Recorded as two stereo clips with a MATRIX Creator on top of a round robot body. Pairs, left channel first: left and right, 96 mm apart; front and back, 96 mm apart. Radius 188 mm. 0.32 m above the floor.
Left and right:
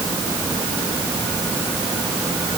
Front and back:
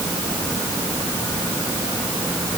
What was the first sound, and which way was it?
Only background noise.